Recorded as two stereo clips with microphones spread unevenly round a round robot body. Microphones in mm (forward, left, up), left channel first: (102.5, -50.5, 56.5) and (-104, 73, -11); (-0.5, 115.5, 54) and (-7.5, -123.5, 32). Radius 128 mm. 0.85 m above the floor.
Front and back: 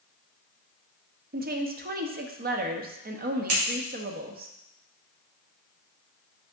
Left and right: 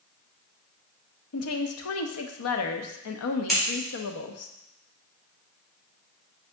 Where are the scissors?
175° left, 4 m.